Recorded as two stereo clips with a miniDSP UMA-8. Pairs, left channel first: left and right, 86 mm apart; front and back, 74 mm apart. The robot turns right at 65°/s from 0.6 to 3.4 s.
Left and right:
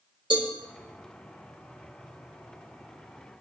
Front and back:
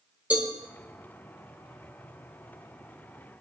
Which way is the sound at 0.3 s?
110° right.